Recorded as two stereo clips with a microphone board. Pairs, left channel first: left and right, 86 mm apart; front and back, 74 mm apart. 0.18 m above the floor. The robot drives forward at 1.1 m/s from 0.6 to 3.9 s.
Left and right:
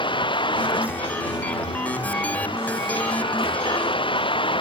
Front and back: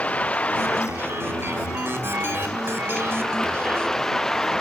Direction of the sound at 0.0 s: 70° left.